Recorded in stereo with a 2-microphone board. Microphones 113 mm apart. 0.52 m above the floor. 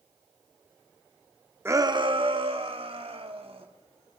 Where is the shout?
20° right (ahead or behind), 0.6 m; by 3.7 s 65° right (ahead or behind), 3 m.